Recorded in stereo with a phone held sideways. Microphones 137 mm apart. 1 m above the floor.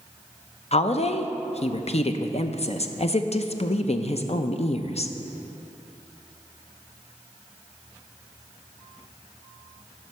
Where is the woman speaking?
50° left (ahead or behind), 0.5 m.